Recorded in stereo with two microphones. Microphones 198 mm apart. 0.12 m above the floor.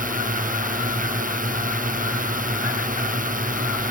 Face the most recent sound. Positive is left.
turn(degrees=-40)  # may be behind; listen again after turning